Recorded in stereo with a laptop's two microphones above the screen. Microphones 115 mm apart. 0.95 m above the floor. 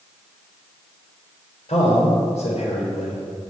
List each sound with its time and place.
1.7 s a man speaking: 75° left (ahead or behind), 3.5 m